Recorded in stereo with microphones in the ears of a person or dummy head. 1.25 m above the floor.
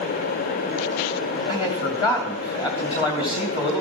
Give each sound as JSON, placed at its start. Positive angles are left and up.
{"t": 1.5, "sound": "a man speaking", "side_deg": 25, "distance_m": 2.5}